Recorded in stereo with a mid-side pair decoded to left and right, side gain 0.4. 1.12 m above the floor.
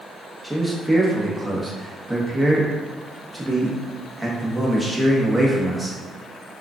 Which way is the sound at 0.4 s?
5° right.